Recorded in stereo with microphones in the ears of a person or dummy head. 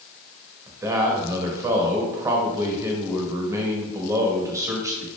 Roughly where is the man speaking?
Centre.